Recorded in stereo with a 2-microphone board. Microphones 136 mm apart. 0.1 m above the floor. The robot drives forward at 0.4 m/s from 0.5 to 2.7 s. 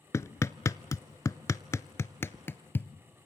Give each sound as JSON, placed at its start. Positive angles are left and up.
{"t": 0.1, "sound": "hammering", "side_deg": 20, "distance_m": 0.6}